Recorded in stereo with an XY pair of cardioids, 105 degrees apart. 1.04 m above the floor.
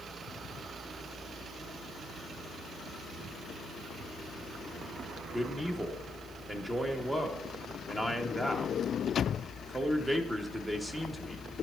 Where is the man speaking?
15° right, 1.2 m.